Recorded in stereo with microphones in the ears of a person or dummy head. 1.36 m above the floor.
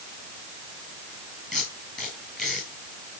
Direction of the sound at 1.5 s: 5° left (ahead or behind).